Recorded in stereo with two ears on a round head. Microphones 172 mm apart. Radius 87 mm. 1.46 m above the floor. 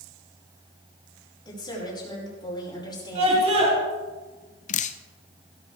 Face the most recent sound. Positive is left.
turn(degrees=40)  # may be behind; listen again after turning